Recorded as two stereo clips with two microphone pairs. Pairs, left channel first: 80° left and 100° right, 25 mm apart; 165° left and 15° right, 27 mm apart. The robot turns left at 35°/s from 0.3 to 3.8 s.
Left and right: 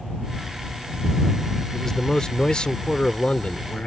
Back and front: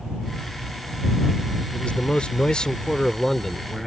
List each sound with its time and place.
1.7 s a man speaking: 150° left; by 3.9 s 80° left